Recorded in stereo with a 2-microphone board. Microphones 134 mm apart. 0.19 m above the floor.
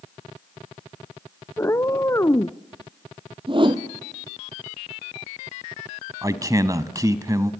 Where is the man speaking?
25° right (ahead or behind), 1.1 m.